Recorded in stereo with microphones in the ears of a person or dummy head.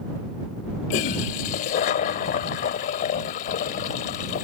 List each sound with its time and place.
0.9 s a toilet flushing: 45° left (ahead or behind)